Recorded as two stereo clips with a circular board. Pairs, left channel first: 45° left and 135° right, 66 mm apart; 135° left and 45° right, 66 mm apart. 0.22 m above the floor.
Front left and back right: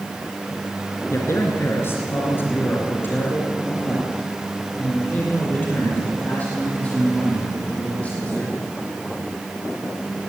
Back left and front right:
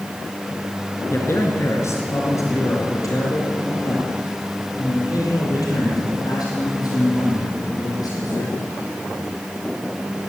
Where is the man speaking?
90° left, 3 m; by 8.6 s 115° left, 9.5 m.